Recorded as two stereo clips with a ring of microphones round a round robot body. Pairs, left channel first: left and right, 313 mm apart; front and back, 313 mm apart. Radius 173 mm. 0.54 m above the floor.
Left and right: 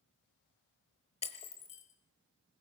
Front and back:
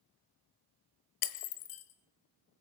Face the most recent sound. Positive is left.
turn(degrees=20)